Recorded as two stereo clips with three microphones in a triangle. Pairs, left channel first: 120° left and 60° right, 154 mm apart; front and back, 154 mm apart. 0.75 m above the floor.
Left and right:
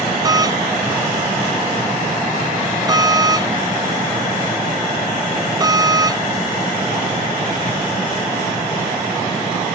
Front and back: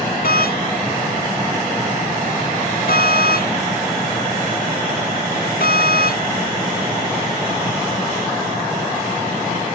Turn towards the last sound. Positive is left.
turn(degrees=5)